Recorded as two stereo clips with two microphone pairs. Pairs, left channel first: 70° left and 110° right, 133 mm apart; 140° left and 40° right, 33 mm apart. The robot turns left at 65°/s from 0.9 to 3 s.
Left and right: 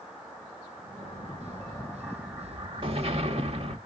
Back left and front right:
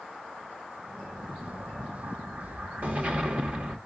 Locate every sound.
1.0 s an explosion: 50° left, 1.2 m; by 3.8 s 80° right, 1.2 m